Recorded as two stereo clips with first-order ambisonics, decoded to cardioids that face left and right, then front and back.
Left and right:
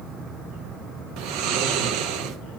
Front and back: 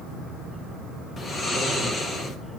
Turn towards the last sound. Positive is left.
turn(degrees=-70)